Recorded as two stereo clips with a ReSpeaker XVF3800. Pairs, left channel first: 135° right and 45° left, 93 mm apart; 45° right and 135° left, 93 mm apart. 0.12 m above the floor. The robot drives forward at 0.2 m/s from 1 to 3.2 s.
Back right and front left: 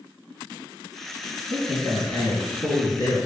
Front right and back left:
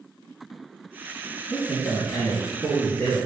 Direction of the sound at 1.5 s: 110° right.